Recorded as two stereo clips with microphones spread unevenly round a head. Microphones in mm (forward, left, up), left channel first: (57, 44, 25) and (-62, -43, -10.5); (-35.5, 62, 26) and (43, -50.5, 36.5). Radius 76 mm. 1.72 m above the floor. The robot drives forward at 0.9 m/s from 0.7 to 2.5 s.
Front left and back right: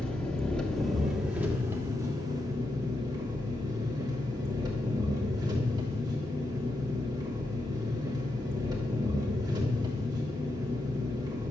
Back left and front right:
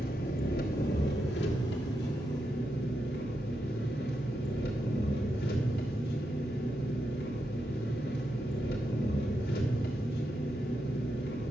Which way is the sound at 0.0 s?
110° left.